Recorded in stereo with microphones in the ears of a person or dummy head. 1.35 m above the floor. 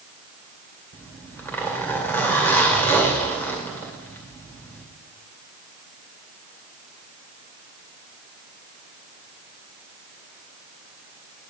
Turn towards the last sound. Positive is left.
turn(degrees=10)  # may be behind; listen again after turning